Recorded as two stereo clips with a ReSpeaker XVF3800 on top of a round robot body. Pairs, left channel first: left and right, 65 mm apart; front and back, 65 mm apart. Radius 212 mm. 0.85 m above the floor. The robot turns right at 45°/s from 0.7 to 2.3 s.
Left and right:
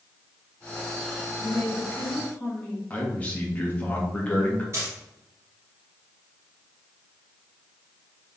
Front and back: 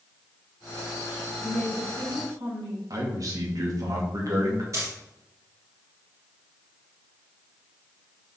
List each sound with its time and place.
1.4 s a woman speaking: 125° left, 3 m; by 2.8 s 165° left, 3 m
2.9 s a man speaking: 155° left, 2.5 m
4.7 s a dropped coin: 140° right, 1.7 m